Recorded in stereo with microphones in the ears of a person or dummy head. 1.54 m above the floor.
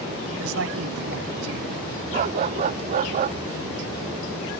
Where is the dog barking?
30° right (ahead or behind).